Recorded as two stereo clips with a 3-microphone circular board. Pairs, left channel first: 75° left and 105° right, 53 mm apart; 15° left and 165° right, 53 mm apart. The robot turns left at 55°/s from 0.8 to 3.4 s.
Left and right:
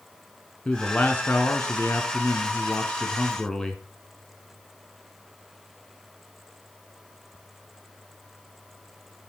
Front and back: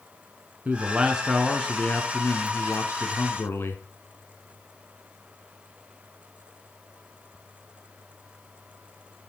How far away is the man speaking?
About 1.8 m.